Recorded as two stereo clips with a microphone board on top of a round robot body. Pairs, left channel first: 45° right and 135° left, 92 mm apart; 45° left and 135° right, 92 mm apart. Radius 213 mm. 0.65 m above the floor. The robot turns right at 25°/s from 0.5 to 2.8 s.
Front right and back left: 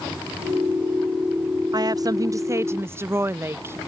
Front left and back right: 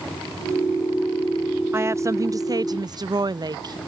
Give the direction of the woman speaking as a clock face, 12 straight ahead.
6 o'clock.